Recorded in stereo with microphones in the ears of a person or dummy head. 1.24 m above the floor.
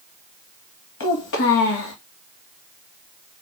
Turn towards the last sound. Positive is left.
turn(degrees=65)  # may be behind; listen again after turning